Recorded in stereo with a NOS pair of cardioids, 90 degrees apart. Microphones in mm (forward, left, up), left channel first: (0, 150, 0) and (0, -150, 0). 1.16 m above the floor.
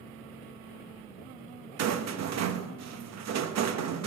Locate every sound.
1.8 s a rattle: 60° right, 0.9 m